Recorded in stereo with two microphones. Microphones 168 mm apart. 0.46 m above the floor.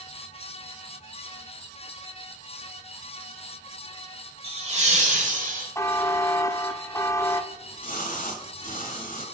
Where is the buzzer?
20° left (ahead or behind), 0.5 m.